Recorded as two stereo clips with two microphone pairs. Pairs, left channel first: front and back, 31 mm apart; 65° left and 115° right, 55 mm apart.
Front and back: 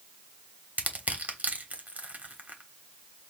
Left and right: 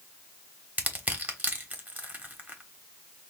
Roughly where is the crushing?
Behind.